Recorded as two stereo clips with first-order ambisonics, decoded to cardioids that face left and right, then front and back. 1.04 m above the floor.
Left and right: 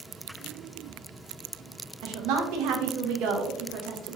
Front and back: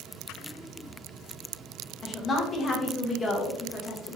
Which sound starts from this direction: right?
A woman speaking, at 2.0 s.